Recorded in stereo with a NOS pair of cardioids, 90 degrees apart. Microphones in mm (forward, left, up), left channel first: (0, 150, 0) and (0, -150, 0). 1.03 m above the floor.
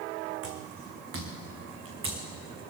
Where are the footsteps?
50° right, 3.5 m; by 2.2 s 40° right, 4.5 m.